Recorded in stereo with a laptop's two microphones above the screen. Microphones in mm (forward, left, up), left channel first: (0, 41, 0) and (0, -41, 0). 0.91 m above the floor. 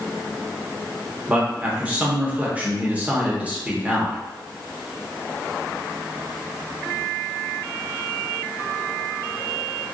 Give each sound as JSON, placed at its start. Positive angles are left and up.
{"t": 1.3, "sound": "a man speaking", "side_deg": -15, "distance_m": 0.9}